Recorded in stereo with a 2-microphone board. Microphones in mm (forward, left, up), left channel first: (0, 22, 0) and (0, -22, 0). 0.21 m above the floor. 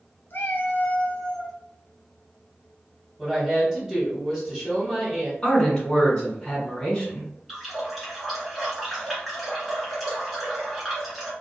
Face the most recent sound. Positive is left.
turn(degrees=0)  # may be behind; listen again after turning